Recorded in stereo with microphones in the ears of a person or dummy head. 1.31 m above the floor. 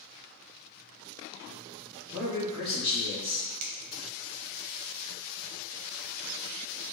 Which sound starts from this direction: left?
A man speaking, at 2.1 s.